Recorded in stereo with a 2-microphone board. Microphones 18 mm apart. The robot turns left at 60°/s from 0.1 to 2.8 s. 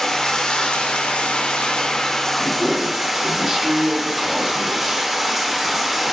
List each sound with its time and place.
0.0 s running water: 150° left, 0.8 m; by 6.1 s 15° right, 0.8 m
2.4 s a man speaking: 20° right (ahead or behind), 1.2 m; by 5.1 s 25° right (ahead or behind), 1.2 m